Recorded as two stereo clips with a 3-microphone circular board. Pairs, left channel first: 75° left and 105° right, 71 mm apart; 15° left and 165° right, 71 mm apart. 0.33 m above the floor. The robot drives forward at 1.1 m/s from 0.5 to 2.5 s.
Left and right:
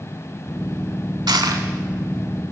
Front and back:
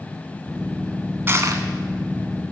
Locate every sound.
1.3 s crushing: 110° right, 0.6 m; by 1.7 s 140° right, 0.8 m